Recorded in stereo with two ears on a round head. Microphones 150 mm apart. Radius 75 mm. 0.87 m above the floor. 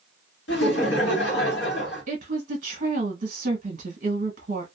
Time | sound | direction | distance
0.5 | laughter | 75° left (ahead or behind) | 1.6 m
2.1 | a woman speaking | 45° right (ahead or behind) | 1.1 m